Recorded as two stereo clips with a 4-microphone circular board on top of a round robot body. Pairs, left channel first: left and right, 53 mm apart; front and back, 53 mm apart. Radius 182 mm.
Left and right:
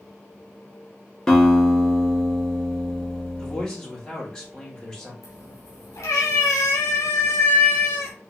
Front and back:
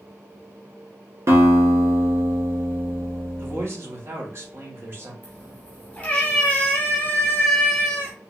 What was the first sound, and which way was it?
A guitar, 165° left.